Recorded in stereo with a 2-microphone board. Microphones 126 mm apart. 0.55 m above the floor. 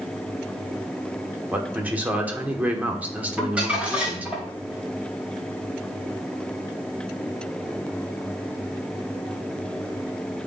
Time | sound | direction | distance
1.5 | a man speaking | 10° right (ahead or behind) | 1.1 m
3.4 | crumpling | 10° right (ahead or behind) | 2.5 m